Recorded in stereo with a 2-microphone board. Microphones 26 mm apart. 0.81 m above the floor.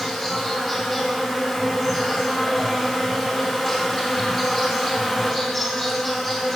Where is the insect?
10° left (ahead or behind), 2.5 m.